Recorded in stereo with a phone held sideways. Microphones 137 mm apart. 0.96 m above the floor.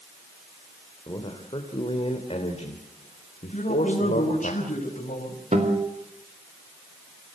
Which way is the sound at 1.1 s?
30° left (ahead or behind).